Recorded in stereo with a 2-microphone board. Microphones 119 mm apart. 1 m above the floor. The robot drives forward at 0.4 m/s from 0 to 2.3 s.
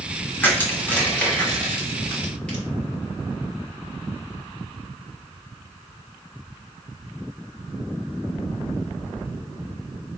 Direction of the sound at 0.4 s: 15° left (ahead or behind).